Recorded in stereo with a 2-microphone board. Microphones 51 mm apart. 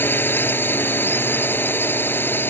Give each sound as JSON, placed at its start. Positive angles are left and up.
{"t": 0.0, "sound": "a drone", "side_deg": 40}